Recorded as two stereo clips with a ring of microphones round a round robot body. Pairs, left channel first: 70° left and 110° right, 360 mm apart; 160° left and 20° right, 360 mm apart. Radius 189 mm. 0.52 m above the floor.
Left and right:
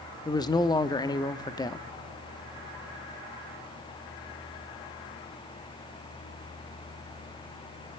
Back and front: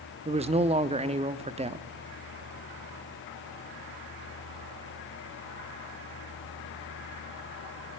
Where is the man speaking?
10° left, 0.8 m.